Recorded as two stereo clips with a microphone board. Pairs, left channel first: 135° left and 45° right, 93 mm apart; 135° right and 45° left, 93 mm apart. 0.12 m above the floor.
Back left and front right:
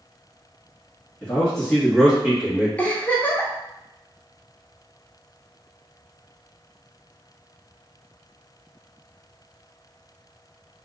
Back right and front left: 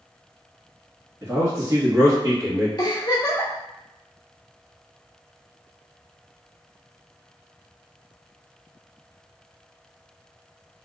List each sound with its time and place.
1.2 s a man speaking: 75° left, 1.6 m; by 2.7 s 25° left, 1.9 m
2.8 s a giggle: 155° right, 0.8 m